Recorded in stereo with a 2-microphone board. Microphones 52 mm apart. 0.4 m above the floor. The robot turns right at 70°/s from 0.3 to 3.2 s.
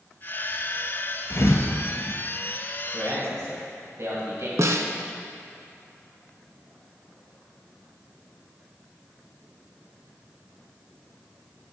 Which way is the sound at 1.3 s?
50° left (ahead or behind).